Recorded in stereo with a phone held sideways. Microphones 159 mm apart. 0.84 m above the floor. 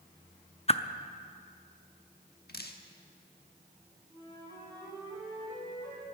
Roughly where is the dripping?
Left.